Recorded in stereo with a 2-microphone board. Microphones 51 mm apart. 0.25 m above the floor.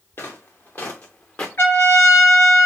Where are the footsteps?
50° left (ahead or behind), 1.6 m; by 1.5 s 20° left (ahead or behind), 1.0 m.